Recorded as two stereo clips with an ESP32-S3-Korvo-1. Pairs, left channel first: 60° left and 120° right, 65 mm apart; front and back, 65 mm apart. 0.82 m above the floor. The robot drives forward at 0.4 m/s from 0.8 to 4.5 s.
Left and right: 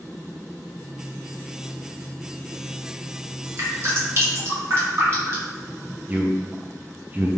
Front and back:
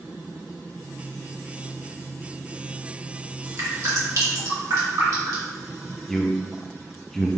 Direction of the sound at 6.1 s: 80° right.